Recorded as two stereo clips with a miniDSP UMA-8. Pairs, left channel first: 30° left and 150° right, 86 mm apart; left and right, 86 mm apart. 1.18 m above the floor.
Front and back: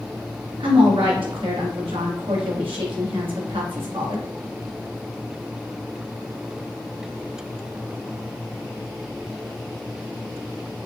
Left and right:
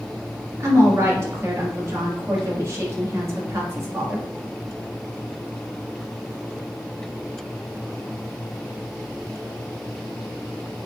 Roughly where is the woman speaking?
Behind right.